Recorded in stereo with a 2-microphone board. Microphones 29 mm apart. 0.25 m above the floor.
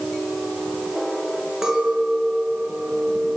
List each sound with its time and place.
1.6 s a clink: 25° right (ahead or behind), 2.5 m